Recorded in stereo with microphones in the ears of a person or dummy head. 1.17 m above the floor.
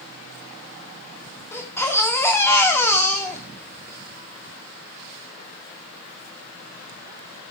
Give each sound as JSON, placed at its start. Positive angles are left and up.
{"t": 1.5, "sound": "a baby crying", "side_deg": 10, "distance_m": 1.9}